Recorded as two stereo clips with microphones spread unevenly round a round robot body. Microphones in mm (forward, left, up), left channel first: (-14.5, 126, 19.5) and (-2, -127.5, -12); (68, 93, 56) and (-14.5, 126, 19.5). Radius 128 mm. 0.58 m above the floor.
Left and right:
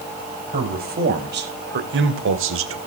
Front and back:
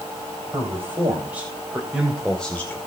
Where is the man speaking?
140° right, 3.5 m; by 2.8 s 105° right, 2 m.